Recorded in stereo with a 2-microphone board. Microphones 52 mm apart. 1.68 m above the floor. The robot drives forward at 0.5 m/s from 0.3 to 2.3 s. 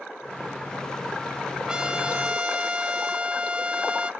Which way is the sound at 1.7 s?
15° right (ahead or behind).